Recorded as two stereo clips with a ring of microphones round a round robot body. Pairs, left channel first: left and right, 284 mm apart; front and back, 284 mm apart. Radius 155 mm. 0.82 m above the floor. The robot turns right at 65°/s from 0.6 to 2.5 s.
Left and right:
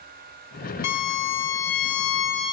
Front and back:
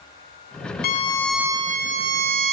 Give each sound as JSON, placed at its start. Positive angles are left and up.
{"t": 0.8, "sound": "a violin", "azimuth_deg": 60, "distance_m": 1.0}